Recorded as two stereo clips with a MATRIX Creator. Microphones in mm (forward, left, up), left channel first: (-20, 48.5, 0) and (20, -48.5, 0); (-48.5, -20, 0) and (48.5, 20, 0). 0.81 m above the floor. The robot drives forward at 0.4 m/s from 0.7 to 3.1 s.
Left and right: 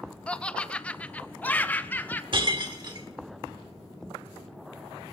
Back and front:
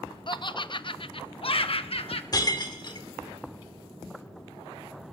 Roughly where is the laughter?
Behind.